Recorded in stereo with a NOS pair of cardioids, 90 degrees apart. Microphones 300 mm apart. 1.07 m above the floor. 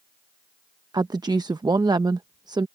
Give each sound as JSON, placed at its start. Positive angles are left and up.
{"t": 0.9, "sound": "a woman speaking", "azimuth_deg": -15}